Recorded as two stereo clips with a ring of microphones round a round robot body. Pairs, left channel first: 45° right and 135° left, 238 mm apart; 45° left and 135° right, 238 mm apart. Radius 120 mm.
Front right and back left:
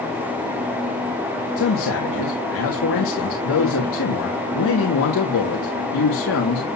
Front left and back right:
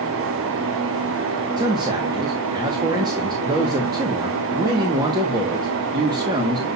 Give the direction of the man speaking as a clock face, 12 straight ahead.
2 o'clock.